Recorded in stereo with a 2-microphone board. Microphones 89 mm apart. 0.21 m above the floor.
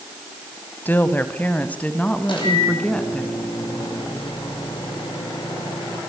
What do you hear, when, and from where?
0.8 s a woman speaking: 20° left (ahead or behind), 1.4 m; by 3.2 s 10° left (ahead or behind), 2.5 m
2.2 s a microwave: 65° left (ahead or behind), 7 m